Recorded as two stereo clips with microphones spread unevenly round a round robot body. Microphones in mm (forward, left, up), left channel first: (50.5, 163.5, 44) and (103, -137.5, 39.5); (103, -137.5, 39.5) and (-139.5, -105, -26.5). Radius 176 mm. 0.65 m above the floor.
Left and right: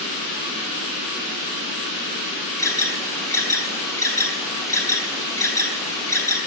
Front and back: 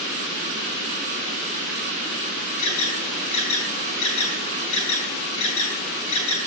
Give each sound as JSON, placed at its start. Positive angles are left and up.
{"t": 2.6, "sound": "an alarm", "azimuth_deg": 20, "distance_m": 3.5}